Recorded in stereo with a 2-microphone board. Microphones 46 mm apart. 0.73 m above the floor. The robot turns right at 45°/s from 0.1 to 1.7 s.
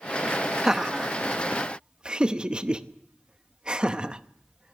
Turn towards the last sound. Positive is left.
turn(degrees=-20)  # may be behind; listen again after turning